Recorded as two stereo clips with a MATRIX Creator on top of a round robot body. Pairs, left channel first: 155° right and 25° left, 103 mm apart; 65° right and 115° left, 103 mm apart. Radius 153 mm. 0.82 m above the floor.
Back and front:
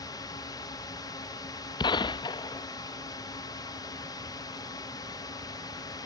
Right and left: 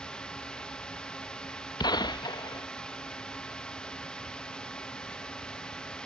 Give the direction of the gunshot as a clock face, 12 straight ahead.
4 o'clock.